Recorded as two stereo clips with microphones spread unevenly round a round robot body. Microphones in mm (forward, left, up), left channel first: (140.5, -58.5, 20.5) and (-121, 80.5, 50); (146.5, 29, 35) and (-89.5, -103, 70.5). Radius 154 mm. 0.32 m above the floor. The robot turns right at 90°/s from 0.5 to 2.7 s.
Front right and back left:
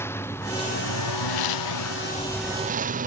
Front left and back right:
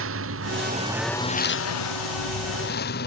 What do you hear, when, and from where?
0.0 s a lawn mower: 110° right; by 3.1 s 90° left